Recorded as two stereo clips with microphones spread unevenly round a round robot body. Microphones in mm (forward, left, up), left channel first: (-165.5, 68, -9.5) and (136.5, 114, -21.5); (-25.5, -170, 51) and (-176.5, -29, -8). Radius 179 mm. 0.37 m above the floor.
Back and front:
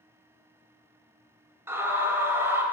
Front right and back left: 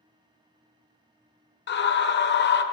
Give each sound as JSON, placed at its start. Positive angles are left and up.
{"t": 1.7, "sound": "a scream", "azimuth_deg": -70, "distance_m": 1.2}